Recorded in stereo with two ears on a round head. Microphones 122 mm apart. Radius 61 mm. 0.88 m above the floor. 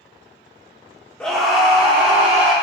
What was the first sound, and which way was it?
A scream, 5° left (ahead or behind).